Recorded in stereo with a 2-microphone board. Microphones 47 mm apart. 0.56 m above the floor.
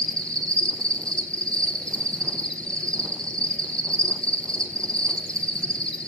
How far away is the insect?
About 1.3 m.